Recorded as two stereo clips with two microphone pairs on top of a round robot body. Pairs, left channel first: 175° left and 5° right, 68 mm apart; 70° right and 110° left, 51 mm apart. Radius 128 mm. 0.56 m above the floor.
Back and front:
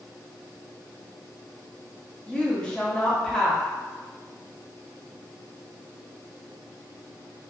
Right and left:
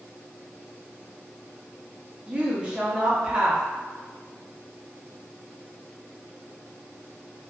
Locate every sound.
2.3 s a woman speaking: 135° left, 0.9 m